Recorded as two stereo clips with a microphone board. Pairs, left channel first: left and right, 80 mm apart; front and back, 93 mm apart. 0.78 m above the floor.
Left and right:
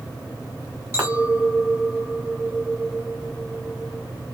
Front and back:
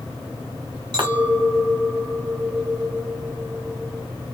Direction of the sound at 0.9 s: 145° right.